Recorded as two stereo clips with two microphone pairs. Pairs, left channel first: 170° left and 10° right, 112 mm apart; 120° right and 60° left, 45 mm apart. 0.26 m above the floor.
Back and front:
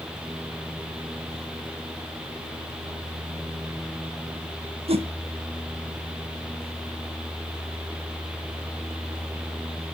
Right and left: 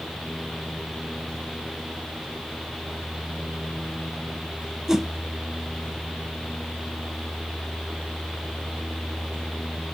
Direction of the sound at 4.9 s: 20° right.